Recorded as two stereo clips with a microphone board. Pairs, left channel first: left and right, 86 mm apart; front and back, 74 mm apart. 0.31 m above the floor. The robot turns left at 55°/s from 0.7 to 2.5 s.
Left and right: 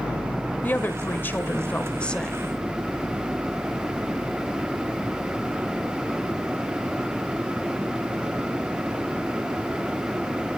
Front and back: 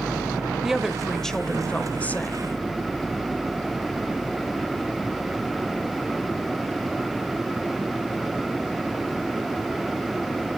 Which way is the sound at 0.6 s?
105° left.